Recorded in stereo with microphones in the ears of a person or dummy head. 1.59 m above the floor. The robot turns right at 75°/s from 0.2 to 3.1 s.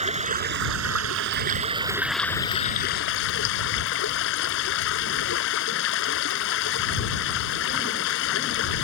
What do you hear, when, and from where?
0.0 s running water: 145° right; by 8.8 s 70° left